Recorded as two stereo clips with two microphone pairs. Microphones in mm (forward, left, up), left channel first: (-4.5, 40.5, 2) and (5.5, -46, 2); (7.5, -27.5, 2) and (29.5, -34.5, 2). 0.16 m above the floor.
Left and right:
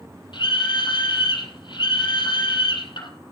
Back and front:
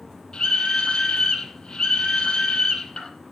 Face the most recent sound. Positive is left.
turn(degrees=115)